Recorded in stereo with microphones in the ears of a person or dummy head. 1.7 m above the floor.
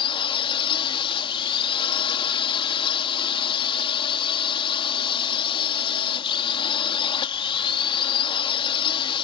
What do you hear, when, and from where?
0.0 s a drone: 25° left (ahead or behind)